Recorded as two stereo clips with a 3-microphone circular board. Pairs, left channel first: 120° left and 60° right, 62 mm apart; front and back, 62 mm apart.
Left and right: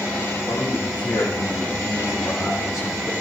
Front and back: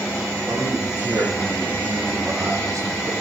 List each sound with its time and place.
0.5 s a man speaking: 130° left, 6 m; by 3.1 s 150° left, 4 m